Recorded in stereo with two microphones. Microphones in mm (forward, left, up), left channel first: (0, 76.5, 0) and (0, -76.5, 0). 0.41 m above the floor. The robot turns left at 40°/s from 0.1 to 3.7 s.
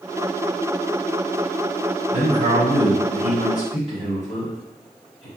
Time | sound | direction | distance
2.1 | a man speaking | 65° right | 1.9 m